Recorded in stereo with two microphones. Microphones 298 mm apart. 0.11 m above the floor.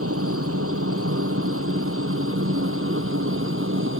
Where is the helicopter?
50° right (ahead or behind); by 4.0 s 45° right (ahead or behind).